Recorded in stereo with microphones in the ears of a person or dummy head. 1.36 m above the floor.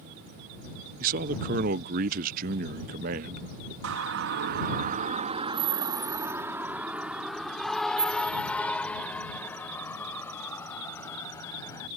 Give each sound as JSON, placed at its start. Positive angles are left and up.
{"t": 1.0, "sound": "a man speaking", "side_deg": -45}
{"t": 3.8, "sound": "a siren", "side_deg": -75}